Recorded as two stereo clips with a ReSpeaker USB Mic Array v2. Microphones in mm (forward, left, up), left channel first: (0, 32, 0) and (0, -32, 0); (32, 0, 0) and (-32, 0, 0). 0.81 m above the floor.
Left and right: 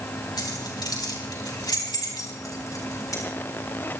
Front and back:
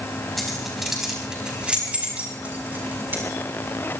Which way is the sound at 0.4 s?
90° left.